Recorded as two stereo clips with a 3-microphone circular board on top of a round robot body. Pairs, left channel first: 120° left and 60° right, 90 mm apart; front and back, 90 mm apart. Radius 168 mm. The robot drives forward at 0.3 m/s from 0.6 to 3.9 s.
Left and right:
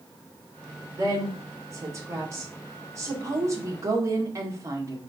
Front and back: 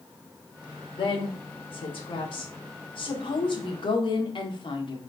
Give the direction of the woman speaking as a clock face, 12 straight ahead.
12 o'clock.